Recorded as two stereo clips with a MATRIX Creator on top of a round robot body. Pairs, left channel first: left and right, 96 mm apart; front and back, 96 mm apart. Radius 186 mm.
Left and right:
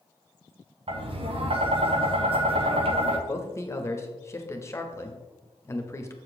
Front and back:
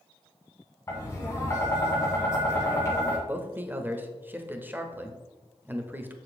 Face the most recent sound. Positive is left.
turn(degrees=125)